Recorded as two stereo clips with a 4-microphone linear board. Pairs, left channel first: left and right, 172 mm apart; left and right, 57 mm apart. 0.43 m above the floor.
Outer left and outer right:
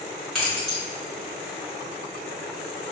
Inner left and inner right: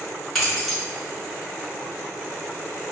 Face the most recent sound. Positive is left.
turn(degrees=0)  # may be behind; listen again after turning